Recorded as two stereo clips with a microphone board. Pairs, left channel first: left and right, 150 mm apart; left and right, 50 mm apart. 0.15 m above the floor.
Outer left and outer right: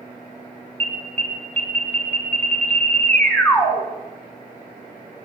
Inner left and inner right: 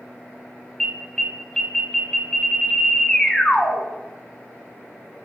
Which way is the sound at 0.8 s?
10° left (ahead or behind).